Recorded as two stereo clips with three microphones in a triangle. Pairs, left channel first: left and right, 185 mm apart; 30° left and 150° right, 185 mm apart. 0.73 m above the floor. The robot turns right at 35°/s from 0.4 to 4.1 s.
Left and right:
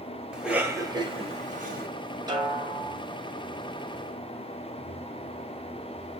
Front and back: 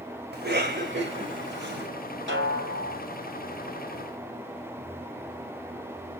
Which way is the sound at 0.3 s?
175° right.